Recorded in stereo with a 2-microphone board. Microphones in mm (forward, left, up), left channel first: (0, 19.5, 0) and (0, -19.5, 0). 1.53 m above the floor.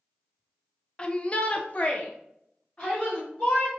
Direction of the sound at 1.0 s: 25° left (ahead or behind).